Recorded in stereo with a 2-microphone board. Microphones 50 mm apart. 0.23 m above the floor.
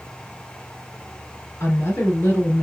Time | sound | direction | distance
1.6 | a woman speaking | 65° left (ahead or behind) | 3.5 m